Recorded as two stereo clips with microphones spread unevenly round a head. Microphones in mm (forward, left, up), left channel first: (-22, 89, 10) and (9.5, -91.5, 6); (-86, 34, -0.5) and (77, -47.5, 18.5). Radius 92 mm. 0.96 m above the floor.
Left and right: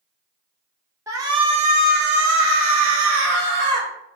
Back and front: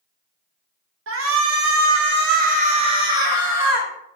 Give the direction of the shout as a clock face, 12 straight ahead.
12 o'clock.